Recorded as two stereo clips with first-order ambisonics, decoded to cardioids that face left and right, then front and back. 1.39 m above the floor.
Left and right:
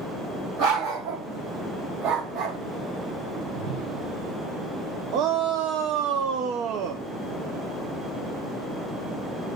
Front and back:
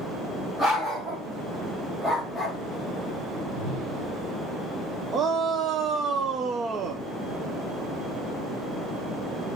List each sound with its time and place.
0.6 s a dog barking: 105° right, 3 m; by 2.6 s 95° right, 1.9 m
3.3 s a whoosh: 135° right, 7 m
5.1 s a shout: 120° right, 0.7 m